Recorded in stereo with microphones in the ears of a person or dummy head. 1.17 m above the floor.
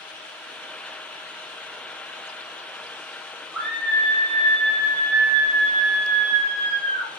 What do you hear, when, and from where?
3.5 s a scream: 5° right (ahead or behind), 3.5 m; by 7.1 s 70° right (ahead or behind), 3 m